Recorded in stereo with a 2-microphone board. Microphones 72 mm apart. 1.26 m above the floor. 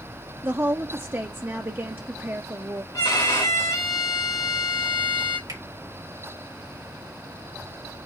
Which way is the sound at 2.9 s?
70° left (ahead or behind).